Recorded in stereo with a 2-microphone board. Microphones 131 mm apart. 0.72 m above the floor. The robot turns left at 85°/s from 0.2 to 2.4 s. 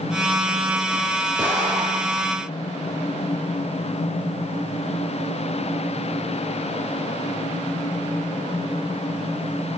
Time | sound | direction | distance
1.4 | an explosion | 15° right | 5 m